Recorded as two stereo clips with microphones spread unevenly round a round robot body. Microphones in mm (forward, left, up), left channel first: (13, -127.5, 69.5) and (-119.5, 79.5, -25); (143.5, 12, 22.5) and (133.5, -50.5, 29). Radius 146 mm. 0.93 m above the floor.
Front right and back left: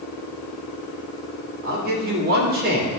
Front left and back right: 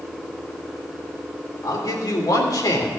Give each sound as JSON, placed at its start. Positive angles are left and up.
{"t": 1.6, "sound": "a man speaking", "azimuth_deg": 70, "distance_m": 3.0}